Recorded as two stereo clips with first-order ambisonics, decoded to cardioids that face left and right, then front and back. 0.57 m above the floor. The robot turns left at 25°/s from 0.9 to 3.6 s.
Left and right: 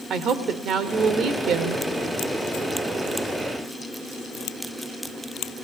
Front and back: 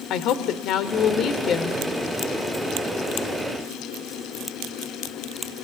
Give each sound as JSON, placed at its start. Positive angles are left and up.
{"t": 0.1, "sound": "a woman speaking", "azimuth_deg": -35, "distance_m": 1.6}